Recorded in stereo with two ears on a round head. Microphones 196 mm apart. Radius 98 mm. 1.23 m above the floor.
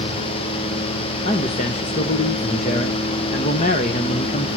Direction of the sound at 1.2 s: 35° left (ahead or behind).